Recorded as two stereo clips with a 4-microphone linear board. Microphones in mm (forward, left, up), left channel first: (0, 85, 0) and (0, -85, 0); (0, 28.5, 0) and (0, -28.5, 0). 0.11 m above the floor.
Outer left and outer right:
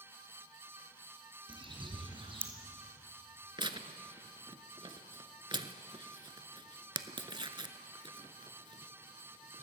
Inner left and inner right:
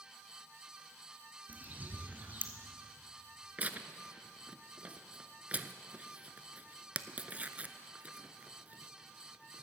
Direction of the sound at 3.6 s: 30° right (ahead or behind).